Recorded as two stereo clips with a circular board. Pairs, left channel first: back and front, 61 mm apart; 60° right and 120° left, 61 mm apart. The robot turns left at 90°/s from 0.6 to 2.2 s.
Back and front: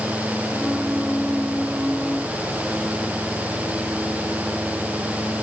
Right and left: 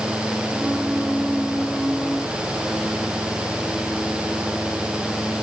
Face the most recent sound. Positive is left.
No sound to turn to.